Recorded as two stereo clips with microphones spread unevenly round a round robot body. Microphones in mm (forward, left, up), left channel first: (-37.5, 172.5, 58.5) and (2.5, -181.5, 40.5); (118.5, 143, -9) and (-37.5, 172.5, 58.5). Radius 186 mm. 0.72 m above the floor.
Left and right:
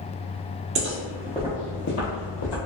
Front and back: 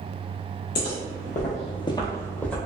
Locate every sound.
0.8 s footsteps: 40° right, 0.9 m; by 2.6 s 90° left, 1.2 m